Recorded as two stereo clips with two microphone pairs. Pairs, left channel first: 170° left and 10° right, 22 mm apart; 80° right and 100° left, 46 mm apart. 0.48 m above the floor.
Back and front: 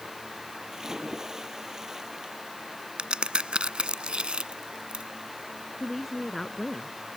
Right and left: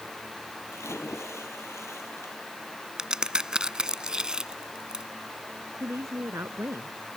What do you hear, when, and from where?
0.7 s a splash: 75° right
3.0 s a crack: 25° left
5.8 s a woman speaking: 90° left